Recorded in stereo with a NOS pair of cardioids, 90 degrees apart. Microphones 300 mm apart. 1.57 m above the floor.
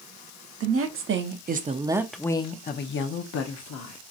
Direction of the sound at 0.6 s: 50° right.